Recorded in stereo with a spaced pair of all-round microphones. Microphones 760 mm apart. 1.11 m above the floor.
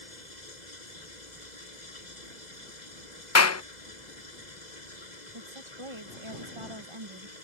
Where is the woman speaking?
40° right (ahead or behind).